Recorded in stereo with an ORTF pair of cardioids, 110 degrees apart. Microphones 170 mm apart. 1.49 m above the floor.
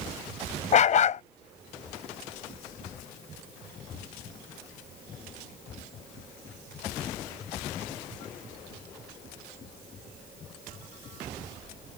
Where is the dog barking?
50° left.